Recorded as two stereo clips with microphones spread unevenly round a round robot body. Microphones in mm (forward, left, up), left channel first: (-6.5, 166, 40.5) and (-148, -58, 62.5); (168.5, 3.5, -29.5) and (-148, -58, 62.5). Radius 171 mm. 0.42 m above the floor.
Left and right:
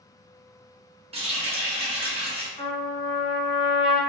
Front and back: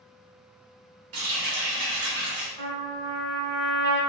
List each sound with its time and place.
1.1 s a running tap: 170° left, 1.1 m
2.6 s a trumpet: 135° left, 1.4 m